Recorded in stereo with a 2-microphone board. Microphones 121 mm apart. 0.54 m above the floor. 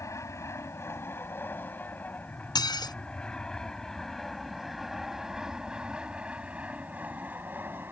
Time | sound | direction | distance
0.0 | an aircraft | 25° left (ahead or behind) | ?
2.5 | dishes clattering | 35° left (ahead or behind) | ?